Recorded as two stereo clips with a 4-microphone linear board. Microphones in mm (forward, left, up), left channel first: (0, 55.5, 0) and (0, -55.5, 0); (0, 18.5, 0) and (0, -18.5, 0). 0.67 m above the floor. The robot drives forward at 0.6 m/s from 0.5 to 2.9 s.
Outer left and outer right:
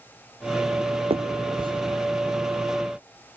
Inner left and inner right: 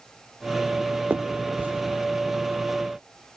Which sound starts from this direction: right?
A finger snap, at 1.1 s.